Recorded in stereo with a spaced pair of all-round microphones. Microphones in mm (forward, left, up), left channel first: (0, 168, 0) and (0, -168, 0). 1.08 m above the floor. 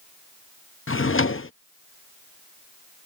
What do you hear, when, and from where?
0.9 s a drawer: 40° left (ahead or behind)